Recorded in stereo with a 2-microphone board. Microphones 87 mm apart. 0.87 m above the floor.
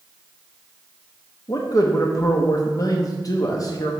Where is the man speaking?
40° left (ahead or behind), 0.8 m.